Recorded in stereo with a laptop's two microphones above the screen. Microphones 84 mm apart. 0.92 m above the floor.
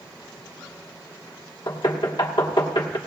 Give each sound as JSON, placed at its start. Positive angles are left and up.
{"t": 1.7, "sound": "knocking", "side_deg": 80, "distance_m": 1.4}